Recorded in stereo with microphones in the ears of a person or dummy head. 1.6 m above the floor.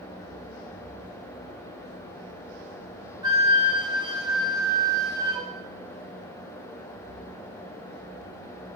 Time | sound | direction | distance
3.2 | a flute | 20° right (ahead or behind) | 1.2 m